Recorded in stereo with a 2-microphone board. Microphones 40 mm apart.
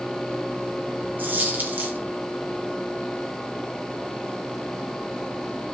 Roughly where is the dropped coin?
Right.